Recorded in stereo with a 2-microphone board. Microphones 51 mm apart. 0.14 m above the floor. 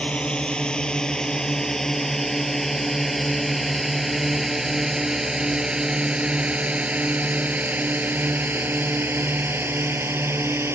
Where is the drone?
20° left (ahead or behind); by 10.8 s 50° right (ahead or behind).